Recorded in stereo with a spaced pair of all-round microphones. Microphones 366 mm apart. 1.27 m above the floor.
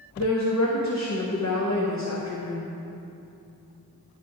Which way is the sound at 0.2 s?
45° left (ahead or behind).